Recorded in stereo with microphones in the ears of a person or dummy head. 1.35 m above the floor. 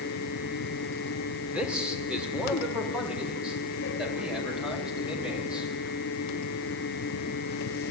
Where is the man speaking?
5° right (ahead or behind), 4.5 m.